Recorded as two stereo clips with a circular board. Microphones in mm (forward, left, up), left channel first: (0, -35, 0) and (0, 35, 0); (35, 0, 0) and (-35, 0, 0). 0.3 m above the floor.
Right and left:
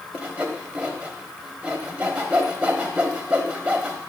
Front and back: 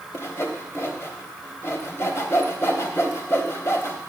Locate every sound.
0.1 s sawing: 25° left, 1.1 m